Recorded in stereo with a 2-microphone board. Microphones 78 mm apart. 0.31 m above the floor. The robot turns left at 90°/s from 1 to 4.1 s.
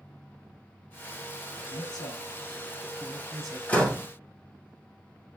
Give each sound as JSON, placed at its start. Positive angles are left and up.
{"t": 1.6, "sound": "a man speaking", "side_deg": 50, "distance_m": 2.0}
{"t": 3.7, "sound": "a door slam", "azimuth_deg": 25, "distance_m": 1.6}